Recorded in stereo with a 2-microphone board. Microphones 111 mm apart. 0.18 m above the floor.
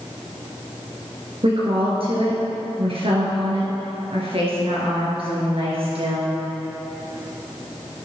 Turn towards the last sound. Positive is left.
turn(degrees=-60)  # may be behind; listen again after turning